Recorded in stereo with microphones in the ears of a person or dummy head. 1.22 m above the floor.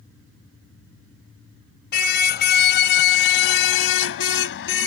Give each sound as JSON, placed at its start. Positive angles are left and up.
{"t": 1.9, "sound": "a car horn", "side_deg": 65}